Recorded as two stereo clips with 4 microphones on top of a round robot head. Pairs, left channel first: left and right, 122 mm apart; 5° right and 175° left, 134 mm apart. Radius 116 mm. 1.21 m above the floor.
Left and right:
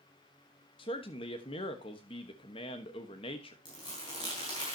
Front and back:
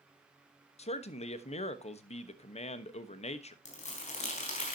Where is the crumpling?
25° left, 4 m.